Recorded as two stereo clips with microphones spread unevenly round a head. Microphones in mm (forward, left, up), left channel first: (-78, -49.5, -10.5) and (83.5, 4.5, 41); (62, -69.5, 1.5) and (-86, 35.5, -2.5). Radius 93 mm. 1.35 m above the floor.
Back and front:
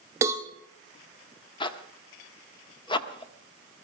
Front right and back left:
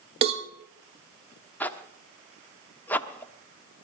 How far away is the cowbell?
About 1.1 m.